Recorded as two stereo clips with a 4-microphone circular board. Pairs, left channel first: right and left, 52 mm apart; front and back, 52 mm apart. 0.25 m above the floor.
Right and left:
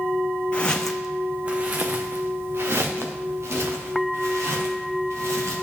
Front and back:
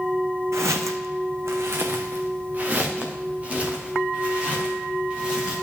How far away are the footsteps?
About 0.9 m.